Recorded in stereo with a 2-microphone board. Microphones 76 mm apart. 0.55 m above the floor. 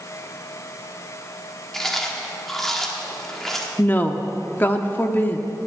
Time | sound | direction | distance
1.7 | chewing | 5° left (ahead or behind) | 1.4 m
3.8 | a woman speaking | 25° left (ahead or behind) | 0.8 m